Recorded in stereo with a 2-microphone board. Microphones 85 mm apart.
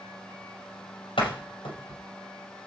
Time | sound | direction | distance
1.2 | a door slam | 80° left | 5 m